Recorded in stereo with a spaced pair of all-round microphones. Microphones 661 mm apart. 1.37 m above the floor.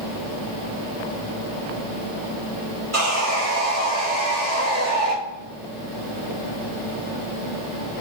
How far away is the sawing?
About 2 m.